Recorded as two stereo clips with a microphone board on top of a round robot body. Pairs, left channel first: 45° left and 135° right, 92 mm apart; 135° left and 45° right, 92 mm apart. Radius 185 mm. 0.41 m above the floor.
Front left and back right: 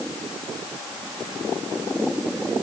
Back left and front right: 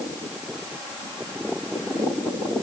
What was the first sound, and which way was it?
Only background noise.